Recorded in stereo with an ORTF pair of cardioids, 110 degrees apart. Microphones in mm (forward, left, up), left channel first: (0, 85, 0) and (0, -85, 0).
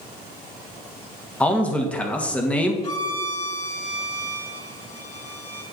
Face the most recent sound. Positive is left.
turn(degrees=35)